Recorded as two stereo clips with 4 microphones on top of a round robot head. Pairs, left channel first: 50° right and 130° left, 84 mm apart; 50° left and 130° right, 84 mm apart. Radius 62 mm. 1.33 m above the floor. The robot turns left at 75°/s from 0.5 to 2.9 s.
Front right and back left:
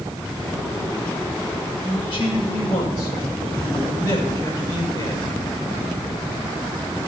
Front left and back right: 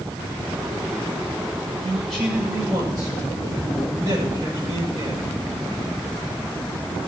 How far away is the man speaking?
About 6 m.